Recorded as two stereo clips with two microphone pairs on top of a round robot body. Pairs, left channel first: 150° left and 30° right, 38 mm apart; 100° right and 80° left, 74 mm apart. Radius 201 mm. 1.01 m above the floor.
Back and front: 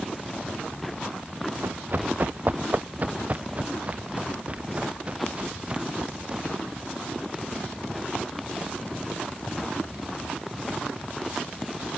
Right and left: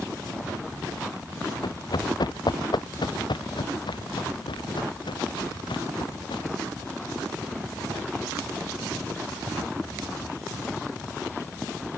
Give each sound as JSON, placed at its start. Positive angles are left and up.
{"t": 1.6, "sound": "running footsteps", "azimuth_deg": -70}